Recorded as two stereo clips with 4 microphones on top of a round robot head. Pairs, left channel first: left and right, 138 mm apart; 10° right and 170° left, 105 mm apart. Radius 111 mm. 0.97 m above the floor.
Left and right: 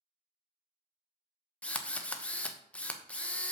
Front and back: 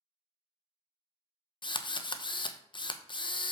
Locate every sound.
1.6 s a drill: 10° left, 1.0 m